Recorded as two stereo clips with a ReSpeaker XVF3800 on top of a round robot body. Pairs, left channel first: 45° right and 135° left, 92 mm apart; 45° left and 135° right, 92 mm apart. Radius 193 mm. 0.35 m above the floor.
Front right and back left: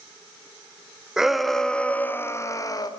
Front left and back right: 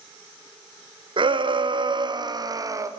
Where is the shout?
140° right, 2.5 m; by 2.9 s 85° right, 2.5 m.